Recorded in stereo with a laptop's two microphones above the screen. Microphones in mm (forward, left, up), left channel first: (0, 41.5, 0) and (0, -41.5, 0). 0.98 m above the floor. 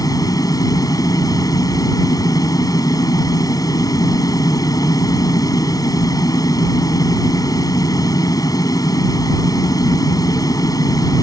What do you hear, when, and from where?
0.0 s a fan: 50° left (ahead or behind)